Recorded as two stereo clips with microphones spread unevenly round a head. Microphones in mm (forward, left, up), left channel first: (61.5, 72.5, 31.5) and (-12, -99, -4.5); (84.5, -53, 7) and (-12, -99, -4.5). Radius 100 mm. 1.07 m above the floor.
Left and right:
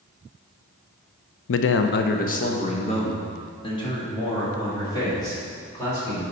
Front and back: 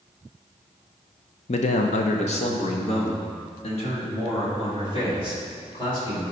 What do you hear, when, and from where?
1.5 s a man speaking: 60° left, 0.6 m; by 6.2 s 5° right, 4 m